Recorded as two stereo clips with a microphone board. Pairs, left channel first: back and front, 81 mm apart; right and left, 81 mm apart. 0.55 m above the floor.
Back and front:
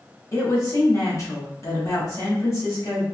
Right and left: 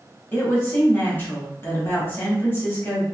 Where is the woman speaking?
145° right, 1.2 m.